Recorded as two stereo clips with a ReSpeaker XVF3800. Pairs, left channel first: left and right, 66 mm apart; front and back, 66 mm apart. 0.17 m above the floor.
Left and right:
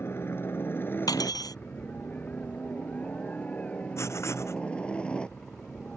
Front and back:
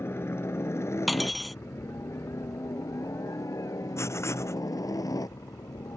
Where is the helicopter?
45° left; by 6.0 s 15° left.